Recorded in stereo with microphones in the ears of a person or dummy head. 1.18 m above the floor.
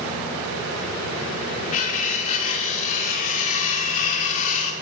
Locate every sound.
1.7 s cutlery clinking: 35° left (ahead or behind), 1.1 m